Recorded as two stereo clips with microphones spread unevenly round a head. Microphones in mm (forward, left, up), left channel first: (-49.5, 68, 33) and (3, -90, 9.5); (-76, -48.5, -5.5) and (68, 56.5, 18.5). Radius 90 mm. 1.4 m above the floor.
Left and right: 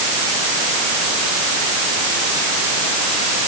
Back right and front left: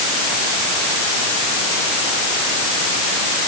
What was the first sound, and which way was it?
Only background noise.